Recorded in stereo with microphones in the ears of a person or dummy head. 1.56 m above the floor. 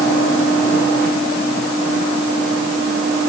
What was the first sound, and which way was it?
Only background noise.